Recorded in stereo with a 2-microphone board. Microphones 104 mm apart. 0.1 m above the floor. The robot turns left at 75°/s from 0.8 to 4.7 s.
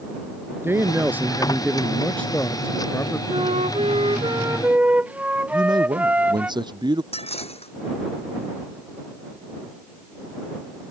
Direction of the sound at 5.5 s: 45° right (ahead or behind).